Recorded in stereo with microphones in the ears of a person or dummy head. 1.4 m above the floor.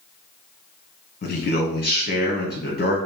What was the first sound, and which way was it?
A man speaking, 45° left (ahead or behind).